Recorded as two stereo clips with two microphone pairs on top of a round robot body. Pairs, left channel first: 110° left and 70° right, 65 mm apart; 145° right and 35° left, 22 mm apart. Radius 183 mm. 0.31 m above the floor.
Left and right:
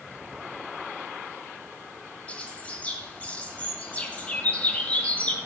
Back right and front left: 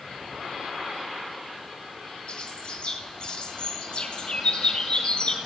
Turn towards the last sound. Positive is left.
turn(degrees=180)